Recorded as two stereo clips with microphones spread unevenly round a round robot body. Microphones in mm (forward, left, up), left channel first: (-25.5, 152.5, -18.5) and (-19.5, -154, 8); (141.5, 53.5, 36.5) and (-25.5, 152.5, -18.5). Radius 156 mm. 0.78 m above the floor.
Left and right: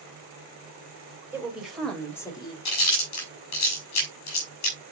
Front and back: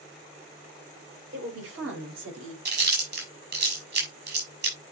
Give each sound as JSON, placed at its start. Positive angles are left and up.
{"t": 1.3, "sound": "a woman speaking", "azimuth_deg": -175, "distance_m": 4.0}
{"t": 2.6, "sound": "chewing", "azimuth_deg": 125, "distance_m": 6.0}